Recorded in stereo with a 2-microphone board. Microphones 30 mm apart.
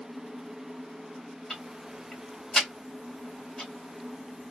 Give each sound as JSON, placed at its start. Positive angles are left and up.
{"t": 1.5, "sound": "ticking", "side_deg": 10, "distance_m": 2.0}